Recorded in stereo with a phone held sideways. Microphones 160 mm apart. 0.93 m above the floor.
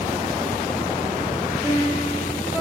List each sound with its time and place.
1.6 s a piano: 15° right (ahead or behind), 5 m